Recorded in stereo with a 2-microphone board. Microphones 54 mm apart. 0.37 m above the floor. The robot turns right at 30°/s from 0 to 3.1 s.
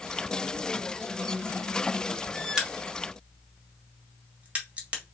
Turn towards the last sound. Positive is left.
turn(degrees=-25)  # may be behind; listen again after turning